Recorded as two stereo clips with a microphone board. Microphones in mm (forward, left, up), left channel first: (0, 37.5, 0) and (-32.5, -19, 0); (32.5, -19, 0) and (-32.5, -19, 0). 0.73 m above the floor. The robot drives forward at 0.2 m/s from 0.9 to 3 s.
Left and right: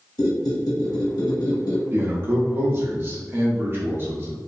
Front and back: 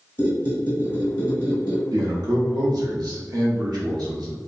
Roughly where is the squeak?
Ahead left.